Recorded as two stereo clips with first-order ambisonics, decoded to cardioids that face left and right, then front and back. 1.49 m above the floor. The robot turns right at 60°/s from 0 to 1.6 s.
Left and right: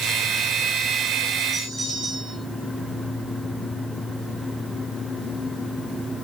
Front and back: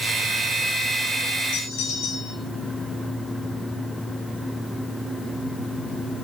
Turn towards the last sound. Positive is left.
turn(degrees=0)